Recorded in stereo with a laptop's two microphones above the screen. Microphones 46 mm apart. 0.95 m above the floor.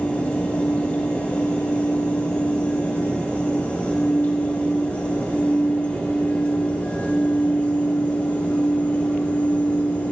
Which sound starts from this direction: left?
A fan, at 0.0 s.